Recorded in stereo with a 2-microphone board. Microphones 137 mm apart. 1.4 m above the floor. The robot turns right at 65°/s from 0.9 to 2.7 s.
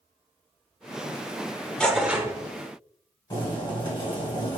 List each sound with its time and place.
1.8 s tearing paper: 170° left, 0.8 m; by 2.3 s 155° right, 0.8 m
3.3 s boiling: 35° left (ahead or behind), 2 m